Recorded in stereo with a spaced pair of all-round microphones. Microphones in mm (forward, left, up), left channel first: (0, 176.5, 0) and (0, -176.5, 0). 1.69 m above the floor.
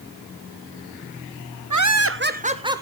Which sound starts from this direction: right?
Laughter, at 1.7 s.